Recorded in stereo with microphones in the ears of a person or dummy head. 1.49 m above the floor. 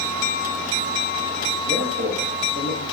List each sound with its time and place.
1.6 s a man speaking: 70° right (ahead or behind), 1.3 m